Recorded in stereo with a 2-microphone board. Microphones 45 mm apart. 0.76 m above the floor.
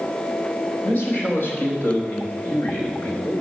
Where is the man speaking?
45° left (ahead or behind), 4.5 m.